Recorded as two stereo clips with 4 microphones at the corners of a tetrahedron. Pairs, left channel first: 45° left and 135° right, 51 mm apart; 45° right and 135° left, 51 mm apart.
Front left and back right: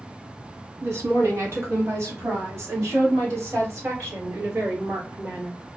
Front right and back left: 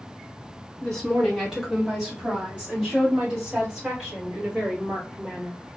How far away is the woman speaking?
About 0.8 m.